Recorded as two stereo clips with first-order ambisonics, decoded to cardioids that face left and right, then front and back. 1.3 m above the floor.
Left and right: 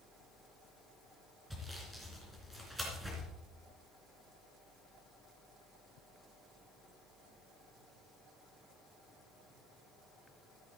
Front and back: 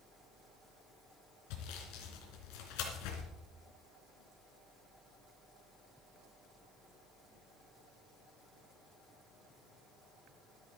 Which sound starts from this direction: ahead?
Sawing, at 1.5 s.